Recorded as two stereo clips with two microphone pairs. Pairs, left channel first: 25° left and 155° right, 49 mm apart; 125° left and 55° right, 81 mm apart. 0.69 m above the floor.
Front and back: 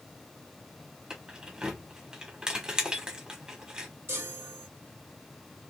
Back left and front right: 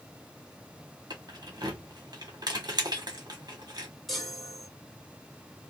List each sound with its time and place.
1.1 s keys jangling: 85° right, 1.4 m
4.1 s a chime: 150° right, 1.9 m